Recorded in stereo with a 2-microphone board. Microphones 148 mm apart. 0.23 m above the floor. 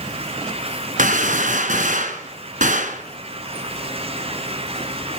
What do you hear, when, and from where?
1.0 s a gunshot: 65° right (ahead or behind), 1.7 m